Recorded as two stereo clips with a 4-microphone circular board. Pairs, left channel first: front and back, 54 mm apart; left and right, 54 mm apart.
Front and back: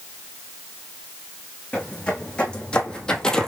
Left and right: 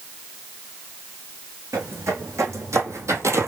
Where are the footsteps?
65° right, 2.5 m; by 3.5 s 75° right, 0.9 m.